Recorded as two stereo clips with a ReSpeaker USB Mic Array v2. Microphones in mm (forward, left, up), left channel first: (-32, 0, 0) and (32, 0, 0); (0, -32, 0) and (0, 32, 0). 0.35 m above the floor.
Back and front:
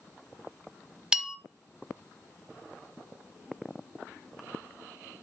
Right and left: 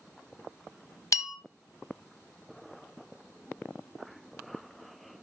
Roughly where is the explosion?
I don't hear an explosion.